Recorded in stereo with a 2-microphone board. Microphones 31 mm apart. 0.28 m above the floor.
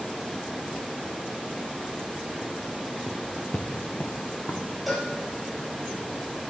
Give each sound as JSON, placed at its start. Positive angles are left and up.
{"t": 3.1, "sound": "footsteps", "side_deg": 20, "distance_m": 1.0}
{"t": 4.9, "sound": "a cowbell", "side_deg": 5, "distance_m": 5.0}